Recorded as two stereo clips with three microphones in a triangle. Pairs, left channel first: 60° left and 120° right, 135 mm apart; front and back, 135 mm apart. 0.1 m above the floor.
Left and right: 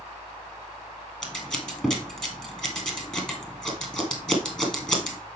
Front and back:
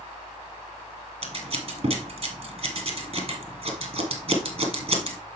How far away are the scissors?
About 1.9 m.